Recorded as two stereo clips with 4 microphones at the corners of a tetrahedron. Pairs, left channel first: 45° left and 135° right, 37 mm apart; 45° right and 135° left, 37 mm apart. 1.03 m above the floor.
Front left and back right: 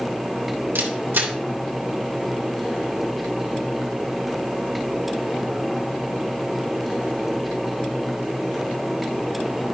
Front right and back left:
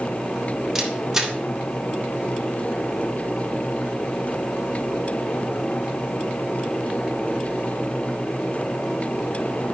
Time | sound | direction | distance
0.8 | a camera shutter | 150° right | 1.2 m